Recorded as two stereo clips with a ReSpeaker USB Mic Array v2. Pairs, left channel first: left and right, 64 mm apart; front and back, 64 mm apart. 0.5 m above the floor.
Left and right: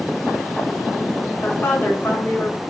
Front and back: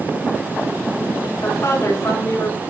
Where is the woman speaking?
30° left, 4.5 m.